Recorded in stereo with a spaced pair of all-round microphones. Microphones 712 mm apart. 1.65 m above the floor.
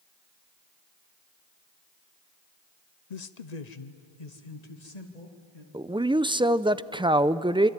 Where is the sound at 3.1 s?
65° left (ahead or behind), 0.8 m; by 5.6 s 60° left (ahead or behind), 3 m.